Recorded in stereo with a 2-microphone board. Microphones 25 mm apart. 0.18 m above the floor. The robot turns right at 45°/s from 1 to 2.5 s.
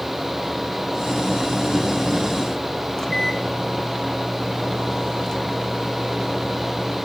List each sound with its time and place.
3.0 s a microwave: 30° left (ahead or behind), 1.8 m